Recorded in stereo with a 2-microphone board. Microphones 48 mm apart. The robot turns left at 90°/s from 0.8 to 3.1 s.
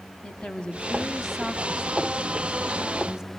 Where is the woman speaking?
20° left (ahead or behind), 1.1 m; by 3.3 s 10° right (ahead or behind), 1.1 m.